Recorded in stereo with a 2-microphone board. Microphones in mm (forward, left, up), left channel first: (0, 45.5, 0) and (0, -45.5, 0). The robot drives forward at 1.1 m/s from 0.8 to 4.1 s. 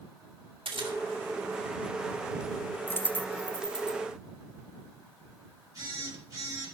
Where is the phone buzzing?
40° right (ahead or behind), 4 m.